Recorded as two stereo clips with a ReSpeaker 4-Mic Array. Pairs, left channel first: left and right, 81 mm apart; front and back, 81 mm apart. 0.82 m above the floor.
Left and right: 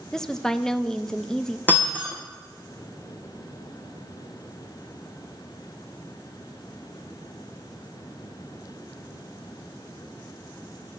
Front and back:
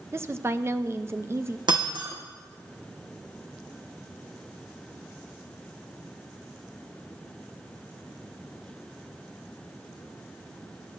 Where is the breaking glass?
160° left, 3 m.